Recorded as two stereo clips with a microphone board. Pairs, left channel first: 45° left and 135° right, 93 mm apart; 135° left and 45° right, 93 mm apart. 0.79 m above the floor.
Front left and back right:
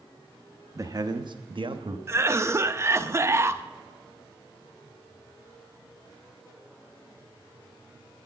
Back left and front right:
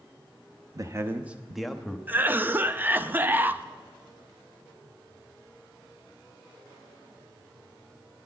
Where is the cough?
100° right, 0.5 m.